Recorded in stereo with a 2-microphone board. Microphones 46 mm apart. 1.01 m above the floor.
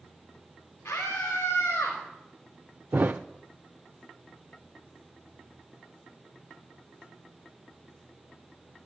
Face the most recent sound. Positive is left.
turn(degrees=-45)  # may be behind; listen again after turning